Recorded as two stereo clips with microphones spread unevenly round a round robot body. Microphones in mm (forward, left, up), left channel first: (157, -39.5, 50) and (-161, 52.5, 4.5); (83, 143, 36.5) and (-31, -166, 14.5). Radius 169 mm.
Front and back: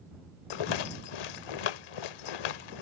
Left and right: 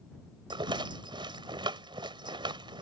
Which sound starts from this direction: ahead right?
A rattle, at 0.5 s.